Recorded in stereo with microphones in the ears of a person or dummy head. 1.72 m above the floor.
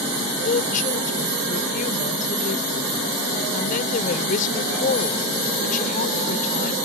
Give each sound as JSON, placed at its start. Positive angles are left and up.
{"t": 0.4, "sound": "a woman speaking", "side_deg": 40}